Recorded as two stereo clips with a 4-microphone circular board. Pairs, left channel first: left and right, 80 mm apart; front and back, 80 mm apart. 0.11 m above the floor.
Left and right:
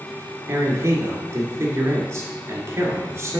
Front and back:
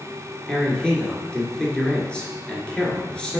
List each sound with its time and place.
0.5 s a man speaking: 70° right, 1.9 m